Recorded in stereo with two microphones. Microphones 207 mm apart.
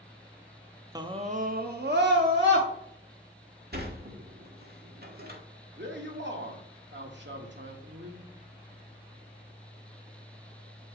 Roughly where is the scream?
Centre.